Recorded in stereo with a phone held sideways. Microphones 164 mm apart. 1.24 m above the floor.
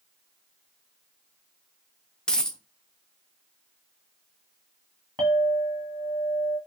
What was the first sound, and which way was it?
A dropped coin, 5° left (ahead or behind).